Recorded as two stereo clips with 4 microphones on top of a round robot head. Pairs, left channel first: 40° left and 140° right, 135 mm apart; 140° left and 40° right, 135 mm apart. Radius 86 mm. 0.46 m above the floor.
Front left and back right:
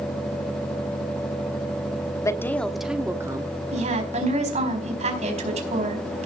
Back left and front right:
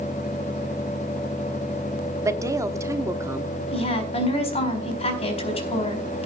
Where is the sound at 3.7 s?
175° right, 4.5 m.